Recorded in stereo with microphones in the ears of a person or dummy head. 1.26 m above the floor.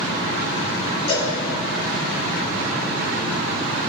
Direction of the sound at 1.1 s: 40° left (ahead or behind).